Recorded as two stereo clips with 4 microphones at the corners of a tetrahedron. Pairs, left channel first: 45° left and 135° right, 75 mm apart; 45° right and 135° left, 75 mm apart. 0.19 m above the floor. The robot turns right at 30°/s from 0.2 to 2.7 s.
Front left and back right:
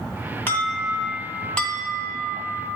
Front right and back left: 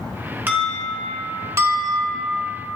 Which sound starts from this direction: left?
An alarm, at 0.5 s.